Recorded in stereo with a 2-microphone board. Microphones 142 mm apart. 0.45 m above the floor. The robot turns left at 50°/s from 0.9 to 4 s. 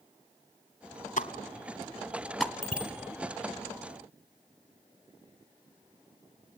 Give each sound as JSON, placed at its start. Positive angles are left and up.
{"t": 1.2, "sound": "a pop", "side_deg": 65, "distance_m": 1.3}
{"t": 2.6, "sound": "a bicycle bell", "side_deg": -55, "distance_m": 4.0}